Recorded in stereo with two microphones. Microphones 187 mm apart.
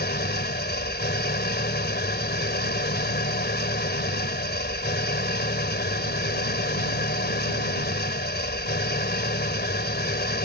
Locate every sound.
0.0 s an engine running: 60° left (ahead or behind)